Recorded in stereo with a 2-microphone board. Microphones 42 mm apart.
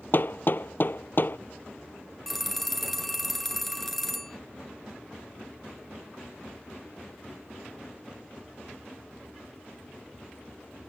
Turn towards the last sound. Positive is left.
turn(degrees=5)  # may be behind; listen again after turning